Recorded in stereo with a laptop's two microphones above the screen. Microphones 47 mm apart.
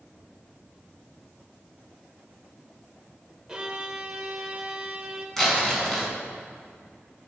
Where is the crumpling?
5° left (ahead or behind), 5 m.